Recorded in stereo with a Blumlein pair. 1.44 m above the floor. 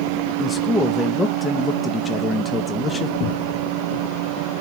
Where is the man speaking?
10° left, 0.7 m.